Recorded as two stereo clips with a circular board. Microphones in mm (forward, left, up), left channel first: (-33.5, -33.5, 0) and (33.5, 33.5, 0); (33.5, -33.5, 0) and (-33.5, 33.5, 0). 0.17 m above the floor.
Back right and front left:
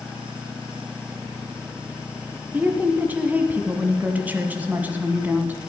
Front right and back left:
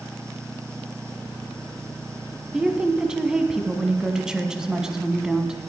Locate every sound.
2.5 s a woman speaking: 65° left, 1.2 m